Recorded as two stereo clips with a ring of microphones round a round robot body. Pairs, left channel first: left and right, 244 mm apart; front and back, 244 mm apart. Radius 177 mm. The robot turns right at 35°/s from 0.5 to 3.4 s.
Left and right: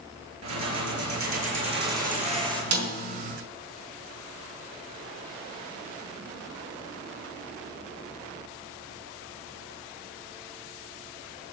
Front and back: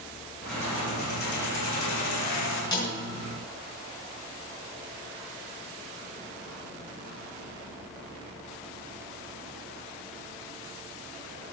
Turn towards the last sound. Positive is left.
turn(degrees=-55)